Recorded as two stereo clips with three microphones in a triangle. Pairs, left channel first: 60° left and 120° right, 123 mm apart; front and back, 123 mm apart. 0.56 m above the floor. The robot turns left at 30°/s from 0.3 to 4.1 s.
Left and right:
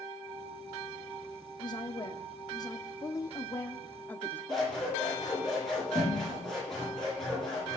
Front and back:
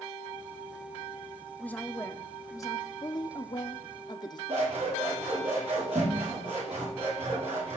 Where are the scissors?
145° left, 9 m.